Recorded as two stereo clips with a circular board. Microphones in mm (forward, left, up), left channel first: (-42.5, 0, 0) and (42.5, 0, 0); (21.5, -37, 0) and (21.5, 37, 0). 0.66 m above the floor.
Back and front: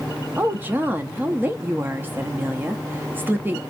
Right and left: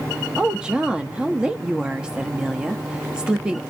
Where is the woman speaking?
25° left, 0.5 m.